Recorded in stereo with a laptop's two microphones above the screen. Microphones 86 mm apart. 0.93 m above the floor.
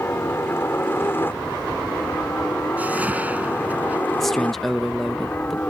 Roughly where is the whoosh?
Centre.